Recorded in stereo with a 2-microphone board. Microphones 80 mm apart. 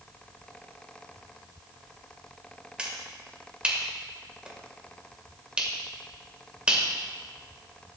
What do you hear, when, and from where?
2.8 s a finger snap: 15° right (ahead or behind), 2.0 m